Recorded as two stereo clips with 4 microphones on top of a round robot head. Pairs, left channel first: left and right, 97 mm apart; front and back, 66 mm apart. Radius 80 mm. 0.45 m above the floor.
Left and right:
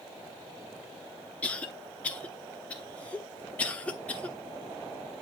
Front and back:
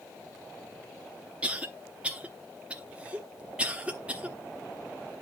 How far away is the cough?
About 1.1 m.